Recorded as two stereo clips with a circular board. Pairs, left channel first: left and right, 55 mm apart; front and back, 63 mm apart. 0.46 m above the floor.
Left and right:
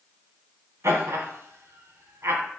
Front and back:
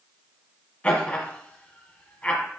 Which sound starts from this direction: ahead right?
Laughter, at 0.8 s.